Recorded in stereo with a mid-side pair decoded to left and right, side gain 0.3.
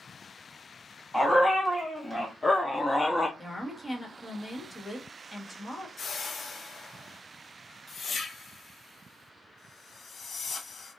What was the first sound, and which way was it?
A dog barking, 5° left.